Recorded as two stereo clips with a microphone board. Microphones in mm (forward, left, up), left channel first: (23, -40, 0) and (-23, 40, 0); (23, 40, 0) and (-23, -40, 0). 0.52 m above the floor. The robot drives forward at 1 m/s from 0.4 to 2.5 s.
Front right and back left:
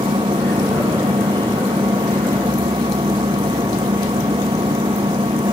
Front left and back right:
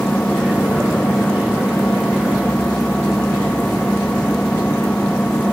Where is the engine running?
140° left.